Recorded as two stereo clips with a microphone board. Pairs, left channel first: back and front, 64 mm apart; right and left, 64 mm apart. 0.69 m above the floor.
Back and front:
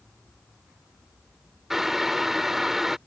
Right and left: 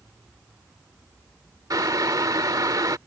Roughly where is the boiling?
Left.